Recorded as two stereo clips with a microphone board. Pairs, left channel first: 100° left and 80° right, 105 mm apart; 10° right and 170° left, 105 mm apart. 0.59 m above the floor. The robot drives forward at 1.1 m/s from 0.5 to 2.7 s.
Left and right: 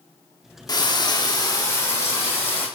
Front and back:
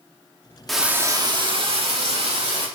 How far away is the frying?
About 0.8 m.